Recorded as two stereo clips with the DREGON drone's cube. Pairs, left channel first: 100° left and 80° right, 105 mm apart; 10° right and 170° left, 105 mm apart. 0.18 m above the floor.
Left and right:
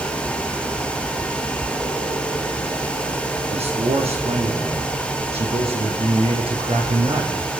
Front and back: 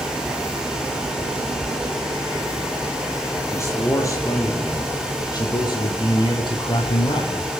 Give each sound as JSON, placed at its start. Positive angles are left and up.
{"t": 3.5, "sound": "a man speaking", "azimuth_deg": -75, "distance_m": 7.0}